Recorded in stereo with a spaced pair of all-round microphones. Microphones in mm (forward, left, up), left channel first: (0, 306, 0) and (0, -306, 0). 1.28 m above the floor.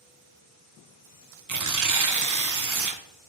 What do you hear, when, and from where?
1.5 s tearing paper: 30° right (ahead or behind), 0.5 m